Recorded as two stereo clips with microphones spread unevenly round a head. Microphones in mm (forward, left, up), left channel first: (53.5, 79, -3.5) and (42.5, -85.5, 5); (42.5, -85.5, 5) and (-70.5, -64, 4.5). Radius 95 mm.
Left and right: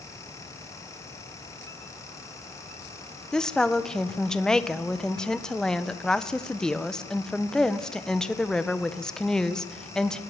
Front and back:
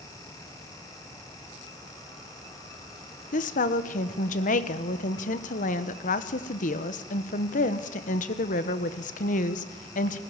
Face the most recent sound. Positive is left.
turn(degrees=0)